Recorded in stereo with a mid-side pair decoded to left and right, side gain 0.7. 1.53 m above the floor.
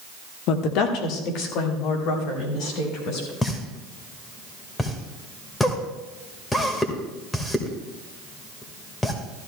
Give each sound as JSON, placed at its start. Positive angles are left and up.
{"t": 0.5, "sound": "a woman speaking", "azimuth_deg": 60, "distance_m": 1.5}
{"t": 3.4, "sound": "a pop", "azimuth_deg": 15, "distance_m": 2.0}